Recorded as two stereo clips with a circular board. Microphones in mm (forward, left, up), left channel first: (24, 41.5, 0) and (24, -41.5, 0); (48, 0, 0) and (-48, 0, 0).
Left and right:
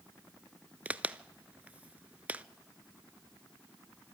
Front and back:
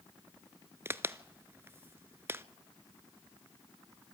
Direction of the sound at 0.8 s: 145° right.